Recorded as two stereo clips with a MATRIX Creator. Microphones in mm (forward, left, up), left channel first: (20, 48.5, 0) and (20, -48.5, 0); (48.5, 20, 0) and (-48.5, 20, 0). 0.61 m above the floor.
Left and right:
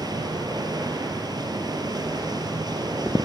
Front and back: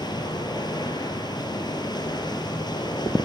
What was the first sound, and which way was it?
Running water, 45° right.